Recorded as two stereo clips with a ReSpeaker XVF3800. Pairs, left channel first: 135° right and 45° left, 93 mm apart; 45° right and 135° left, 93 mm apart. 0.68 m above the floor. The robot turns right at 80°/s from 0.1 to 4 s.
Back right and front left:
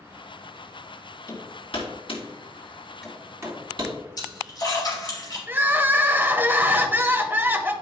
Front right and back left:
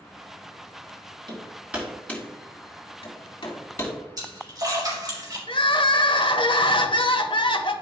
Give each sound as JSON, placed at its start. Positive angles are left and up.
{"t": 1.3, "sound": "hammering", "azimuth_deg": 175, "distance_m": 2.5}
{"t": 4.2, "sound": "a splash", "azimuth_deg": -175, "distance_m": 3.5}
{"t": 5.5, "sound": "crying", "azimuth_deg": -20, "distance_m": 0.8}